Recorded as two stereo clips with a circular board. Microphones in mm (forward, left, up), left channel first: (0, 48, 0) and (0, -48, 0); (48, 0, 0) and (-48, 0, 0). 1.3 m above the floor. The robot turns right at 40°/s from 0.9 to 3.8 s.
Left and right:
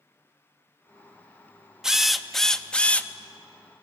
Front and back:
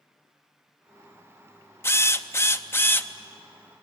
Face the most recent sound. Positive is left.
turn(degrees=65)